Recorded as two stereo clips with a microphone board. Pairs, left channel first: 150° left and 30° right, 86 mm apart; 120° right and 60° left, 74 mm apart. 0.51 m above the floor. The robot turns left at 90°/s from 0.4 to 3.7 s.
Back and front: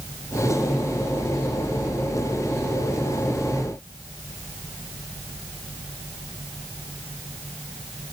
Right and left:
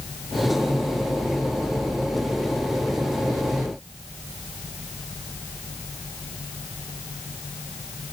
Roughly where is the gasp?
I don't hear a gasp.